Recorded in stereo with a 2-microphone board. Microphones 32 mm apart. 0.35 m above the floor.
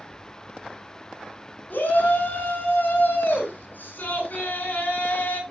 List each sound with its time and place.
1.7 s a shout: 75° left (ahead or behind), 5.5 m; by 5.4 s 60° left (ahead or behind), 3.5 m